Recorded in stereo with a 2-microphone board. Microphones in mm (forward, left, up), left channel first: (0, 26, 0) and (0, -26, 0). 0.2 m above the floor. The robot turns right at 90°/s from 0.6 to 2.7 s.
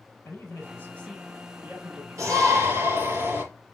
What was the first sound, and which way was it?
A man speaking, 120° left.